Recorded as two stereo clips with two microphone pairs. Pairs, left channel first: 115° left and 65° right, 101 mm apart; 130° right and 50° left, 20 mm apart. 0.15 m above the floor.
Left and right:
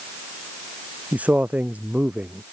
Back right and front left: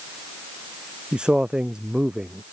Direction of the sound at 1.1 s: 10° left.